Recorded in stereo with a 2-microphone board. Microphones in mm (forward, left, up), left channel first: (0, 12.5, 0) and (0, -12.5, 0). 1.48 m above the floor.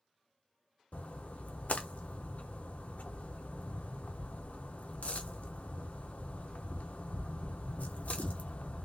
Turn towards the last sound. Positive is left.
turn(degrees=70)  # may be behind; listen again after turning